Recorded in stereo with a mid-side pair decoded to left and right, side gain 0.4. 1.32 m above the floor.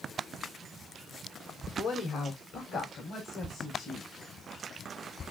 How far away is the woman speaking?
About 3 m.